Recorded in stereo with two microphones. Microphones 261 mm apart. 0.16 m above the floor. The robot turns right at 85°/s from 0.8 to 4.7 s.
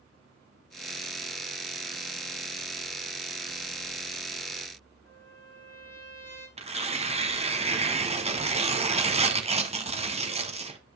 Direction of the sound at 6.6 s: 25° right (ahead or behind).